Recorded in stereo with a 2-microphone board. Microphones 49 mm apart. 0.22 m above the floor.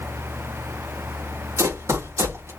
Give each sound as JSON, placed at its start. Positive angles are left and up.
{"t": 1.6, "sound": "running footsteps", "side_deg": -75, "distance_m": 4.0}